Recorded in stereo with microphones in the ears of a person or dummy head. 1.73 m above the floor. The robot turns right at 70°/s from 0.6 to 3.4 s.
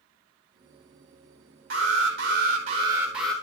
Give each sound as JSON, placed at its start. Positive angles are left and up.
{"t": 1.7, "sound": "an alarm", "azimuth_deg": -115, "distance_m": 3.0}